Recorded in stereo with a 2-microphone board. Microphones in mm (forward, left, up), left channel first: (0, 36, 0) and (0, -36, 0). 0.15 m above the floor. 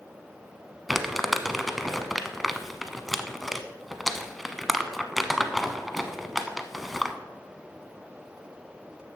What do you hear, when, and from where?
0.9 s crumpling: centre (ahead or behind), 0.7 m